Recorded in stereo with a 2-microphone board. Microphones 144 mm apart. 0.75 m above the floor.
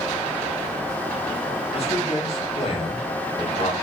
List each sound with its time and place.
1.7 s a man speaking: 45° left (ahead or behind), 1.6 m